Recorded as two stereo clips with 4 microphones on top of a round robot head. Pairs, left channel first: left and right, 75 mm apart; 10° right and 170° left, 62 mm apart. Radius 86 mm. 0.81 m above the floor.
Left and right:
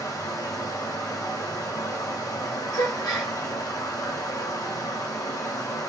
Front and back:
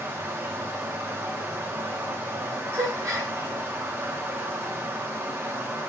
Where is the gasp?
125° left, 0.9 m.